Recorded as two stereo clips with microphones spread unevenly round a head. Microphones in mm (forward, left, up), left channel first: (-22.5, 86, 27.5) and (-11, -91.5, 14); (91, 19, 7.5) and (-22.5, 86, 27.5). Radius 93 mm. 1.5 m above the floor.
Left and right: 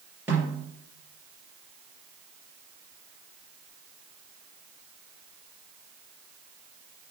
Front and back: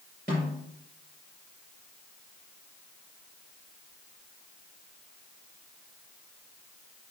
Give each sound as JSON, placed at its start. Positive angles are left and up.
{"t": 0.3, "sound": "a snare drum", "azimuth_deg": -165, "distance_m": 4.5}